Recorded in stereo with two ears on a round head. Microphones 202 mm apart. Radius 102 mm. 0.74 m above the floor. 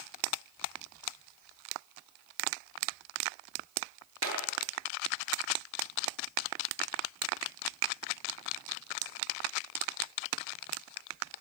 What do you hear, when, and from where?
4.2 s a clap: 70° right (ahead or behind), 8 m